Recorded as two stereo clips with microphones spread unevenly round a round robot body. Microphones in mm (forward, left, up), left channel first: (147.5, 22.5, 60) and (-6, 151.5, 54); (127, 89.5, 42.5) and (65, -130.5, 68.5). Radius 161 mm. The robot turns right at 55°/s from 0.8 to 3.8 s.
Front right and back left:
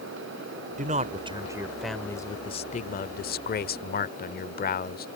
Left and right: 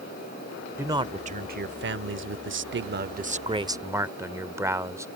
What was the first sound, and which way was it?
A man speaking, 170° left.